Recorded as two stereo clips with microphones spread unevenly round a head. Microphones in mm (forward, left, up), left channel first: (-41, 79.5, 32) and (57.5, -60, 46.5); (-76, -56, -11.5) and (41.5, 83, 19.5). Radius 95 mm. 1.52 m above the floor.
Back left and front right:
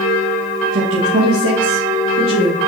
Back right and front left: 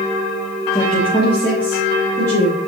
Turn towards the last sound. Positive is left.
turn(degrees=-55)